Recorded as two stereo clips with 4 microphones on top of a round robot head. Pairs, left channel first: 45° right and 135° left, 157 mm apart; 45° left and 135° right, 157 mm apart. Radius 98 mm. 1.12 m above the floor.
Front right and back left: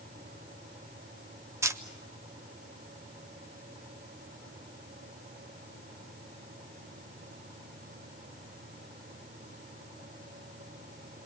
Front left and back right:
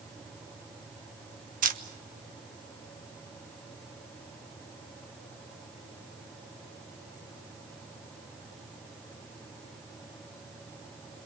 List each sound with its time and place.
1.6 s a camera shutter: 155° right, 1.3 m